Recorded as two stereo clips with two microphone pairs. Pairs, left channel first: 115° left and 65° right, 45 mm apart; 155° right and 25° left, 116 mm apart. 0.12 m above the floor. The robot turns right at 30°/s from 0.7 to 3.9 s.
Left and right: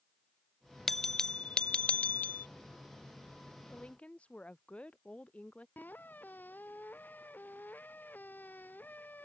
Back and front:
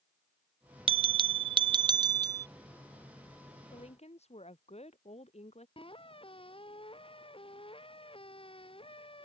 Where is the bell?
30° left; by 2.5 s 80° left.